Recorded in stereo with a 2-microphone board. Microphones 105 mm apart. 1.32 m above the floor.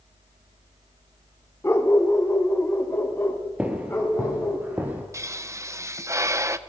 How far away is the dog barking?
About 1.6 m.